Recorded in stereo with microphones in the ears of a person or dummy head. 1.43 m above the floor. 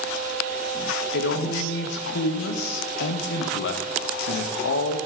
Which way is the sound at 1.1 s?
70° left (ahead or behind).